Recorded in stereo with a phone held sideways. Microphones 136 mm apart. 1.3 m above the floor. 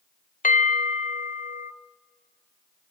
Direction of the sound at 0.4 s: 75° left (ahead or behind).